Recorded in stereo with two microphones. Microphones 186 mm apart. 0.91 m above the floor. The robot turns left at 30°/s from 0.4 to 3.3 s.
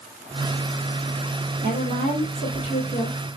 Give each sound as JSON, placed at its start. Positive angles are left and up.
{"t": 1.6, "sound": "a woman speaking", "azimuth_deg": -45, "distance_m": 1.9}